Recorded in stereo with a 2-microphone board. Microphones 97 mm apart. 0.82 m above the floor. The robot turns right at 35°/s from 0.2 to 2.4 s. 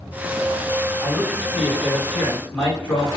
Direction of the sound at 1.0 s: 35° right.